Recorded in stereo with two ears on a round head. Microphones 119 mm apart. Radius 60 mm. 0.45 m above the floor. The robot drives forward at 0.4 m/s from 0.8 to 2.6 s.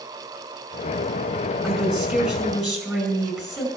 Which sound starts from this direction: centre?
A woman speaking, at 1.6 s.